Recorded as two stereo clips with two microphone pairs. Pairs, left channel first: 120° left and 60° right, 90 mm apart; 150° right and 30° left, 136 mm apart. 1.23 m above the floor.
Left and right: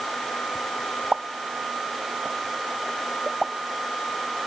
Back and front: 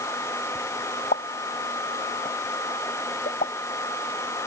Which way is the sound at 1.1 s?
145° right.